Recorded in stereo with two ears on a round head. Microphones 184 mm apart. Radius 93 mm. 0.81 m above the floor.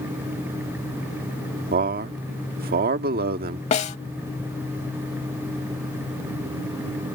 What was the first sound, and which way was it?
A man speaking, 50° right (ahead or behind).